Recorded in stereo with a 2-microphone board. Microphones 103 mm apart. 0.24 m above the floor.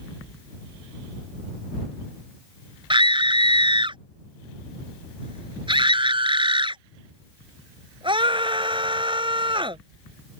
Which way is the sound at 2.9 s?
55° right (ahead or behind).